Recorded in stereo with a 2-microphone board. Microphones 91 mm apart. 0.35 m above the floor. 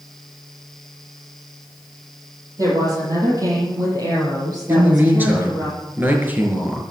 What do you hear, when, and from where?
2.6 s a woman speaking: 40° right (ahead or behind), 8 m; by 5.7 s 50° right (ahead or behind), 7 m
4.7 s a man speaking: 20° right (ahead or behind), 5 m